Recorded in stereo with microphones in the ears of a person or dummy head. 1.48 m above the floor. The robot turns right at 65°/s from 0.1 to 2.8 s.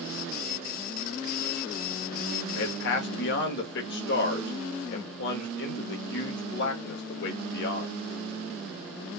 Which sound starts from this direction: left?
A man speaking, at 2.5 s.